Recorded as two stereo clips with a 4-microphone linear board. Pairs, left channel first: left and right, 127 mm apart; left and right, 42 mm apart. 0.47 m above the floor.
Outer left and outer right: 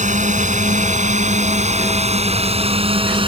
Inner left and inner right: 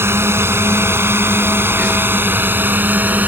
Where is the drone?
75° right (ahead or behind); by 3.3 s 45° right (ahead or behind).